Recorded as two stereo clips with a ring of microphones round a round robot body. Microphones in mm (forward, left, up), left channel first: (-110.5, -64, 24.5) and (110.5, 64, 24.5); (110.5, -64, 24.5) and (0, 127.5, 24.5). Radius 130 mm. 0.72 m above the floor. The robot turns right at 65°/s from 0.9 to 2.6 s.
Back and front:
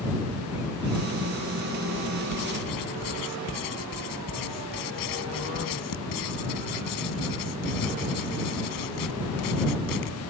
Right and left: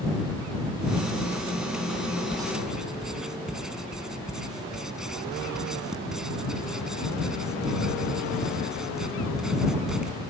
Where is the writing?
170° right; by 10.2 s 150° right.